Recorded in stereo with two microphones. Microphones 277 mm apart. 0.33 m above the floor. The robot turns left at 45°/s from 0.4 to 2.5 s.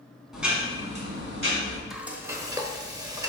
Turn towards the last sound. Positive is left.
turn(degrees=-15)  # may be behind; listen again after turning